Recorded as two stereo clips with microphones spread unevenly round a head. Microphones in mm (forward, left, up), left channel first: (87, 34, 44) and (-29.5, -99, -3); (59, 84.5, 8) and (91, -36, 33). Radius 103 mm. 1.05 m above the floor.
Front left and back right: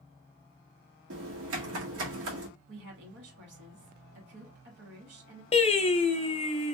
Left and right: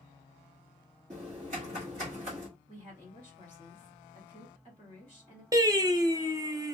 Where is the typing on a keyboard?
130° right, 1.2 m.